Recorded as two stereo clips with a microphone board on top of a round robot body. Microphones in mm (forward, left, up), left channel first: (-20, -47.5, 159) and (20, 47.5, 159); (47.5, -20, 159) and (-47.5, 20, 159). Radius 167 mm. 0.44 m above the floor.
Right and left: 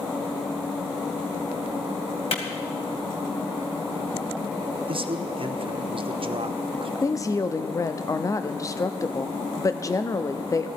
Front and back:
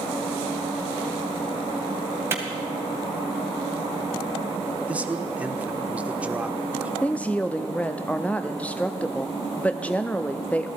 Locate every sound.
2.3 s a clap: 135° right, 2.5 m
4.9 s a man speaking: 85° left, 1.3 m
7.0 s a woman speaking: 90° right, 0.8 m